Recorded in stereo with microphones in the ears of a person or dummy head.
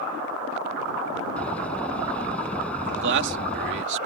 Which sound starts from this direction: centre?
A door slam, at 1.4 s.